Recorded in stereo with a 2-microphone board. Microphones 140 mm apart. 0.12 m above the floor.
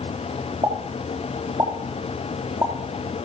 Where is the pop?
30° right (ahead or behind), 4.5 m.